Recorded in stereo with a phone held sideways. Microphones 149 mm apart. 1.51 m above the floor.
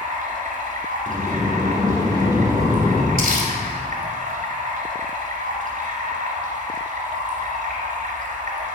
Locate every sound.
0.0 s running water: 60° right (ahead or behind), 2.5 m
1.1 s a sliding door: 20° right (ahead or behind), 1.1 m
3.2 s crumpling: 70° right (ahead or behind), 2.5 m